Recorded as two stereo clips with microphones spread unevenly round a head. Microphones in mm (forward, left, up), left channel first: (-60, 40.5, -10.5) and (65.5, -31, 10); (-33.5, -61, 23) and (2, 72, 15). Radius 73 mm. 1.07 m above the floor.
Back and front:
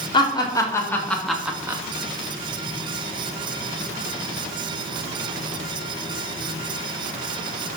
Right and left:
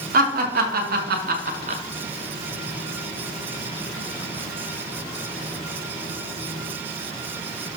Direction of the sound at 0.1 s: 90° left.